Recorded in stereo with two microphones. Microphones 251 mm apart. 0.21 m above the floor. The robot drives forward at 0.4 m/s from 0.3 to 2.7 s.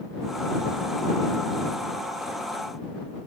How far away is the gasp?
No gasp in this recording.